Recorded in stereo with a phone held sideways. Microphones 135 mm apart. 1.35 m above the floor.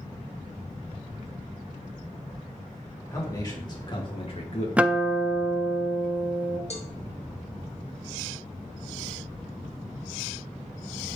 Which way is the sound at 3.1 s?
25° left (ahead or behind).